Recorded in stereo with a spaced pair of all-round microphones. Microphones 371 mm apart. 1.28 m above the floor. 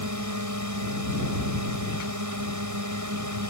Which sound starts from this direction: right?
A drone, at 0.0 s.